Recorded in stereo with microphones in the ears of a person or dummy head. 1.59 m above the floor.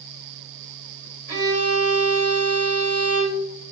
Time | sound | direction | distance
1.3 | a violin | 55° right (ahead or behind) | 2.0 m